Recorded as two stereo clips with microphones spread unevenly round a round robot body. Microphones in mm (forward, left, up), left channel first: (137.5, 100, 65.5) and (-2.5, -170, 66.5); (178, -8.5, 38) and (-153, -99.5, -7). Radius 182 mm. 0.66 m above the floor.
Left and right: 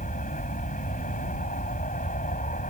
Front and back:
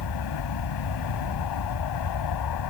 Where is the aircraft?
Straight ahead.